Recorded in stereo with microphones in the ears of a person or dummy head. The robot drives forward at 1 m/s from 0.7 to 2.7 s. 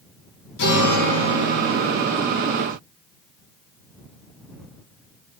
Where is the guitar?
65° left (ahead or behind), 4.5 m; by 2.0 s 75° left (ahead or behind), 4 m.